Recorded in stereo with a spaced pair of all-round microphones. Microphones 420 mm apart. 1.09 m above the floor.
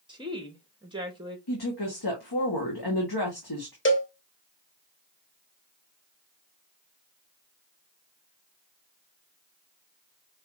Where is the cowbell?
30° left (ahead or behind), 0.8 m.